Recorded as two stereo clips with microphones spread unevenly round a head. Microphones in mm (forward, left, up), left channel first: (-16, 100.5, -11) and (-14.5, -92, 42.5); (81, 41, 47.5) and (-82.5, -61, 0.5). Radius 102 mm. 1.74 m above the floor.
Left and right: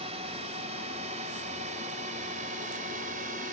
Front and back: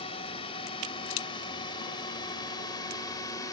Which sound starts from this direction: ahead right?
A drone, at 0.0 s.